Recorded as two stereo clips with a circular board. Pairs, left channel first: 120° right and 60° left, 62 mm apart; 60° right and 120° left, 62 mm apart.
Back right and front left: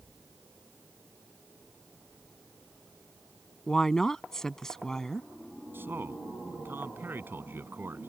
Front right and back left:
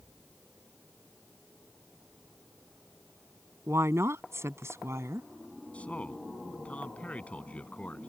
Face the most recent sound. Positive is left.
turn(degrees=5)